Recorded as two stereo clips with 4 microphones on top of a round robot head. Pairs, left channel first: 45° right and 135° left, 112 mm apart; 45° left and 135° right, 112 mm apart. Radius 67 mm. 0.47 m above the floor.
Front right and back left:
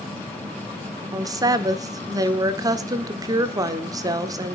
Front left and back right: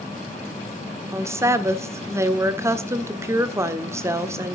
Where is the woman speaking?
175° left, 1.4 m.